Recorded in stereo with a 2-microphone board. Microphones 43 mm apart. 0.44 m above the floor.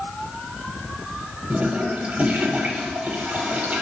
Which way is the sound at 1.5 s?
30° right (ahead or behind).